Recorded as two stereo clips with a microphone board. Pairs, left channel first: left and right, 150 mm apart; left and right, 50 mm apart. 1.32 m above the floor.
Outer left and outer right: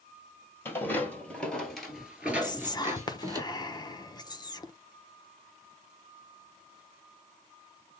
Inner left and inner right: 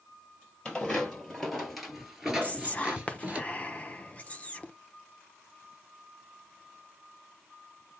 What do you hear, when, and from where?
0.7 s footsteps: 15° left (ahead or behind), 1.9 m; by 3.4 s 25° right (ahead or behind), 1.4 m
2.4 s whispering: 30° left (ahead or behind), 0.7 m